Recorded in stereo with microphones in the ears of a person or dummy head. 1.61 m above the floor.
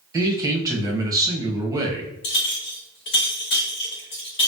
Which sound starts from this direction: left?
A clink, at 2.2 s.